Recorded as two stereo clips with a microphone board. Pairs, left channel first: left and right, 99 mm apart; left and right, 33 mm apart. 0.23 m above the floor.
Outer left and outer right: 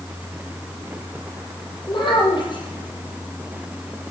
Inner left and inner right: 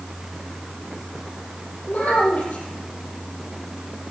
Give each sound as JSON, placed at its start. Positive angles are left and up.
{"t": 1.9, "sound": "a child speaking", "side_deg": 55, "distance_m": 6.5}